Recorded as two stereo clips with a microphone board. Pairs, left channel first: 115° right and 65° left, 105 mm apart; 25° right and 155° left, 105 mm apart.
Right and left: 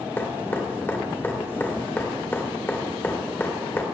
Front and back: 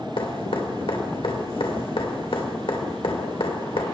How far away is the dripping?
About 1.6 m.